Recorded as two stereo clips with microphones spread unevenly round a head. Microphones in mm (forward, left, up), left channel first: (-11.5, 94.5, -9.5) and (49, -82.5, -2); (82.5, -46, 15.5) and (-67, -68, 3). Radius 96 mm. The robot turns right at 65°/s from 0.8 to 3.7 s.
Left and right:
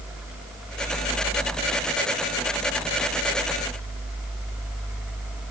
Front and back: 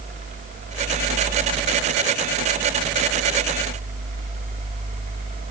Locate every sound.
Only background noise.